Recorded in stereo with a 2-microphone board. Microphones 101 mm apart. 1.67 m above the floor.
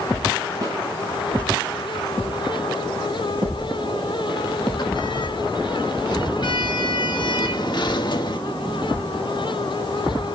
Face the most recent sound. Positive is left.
turn(degrees=55)  # may be behind; listen again after turning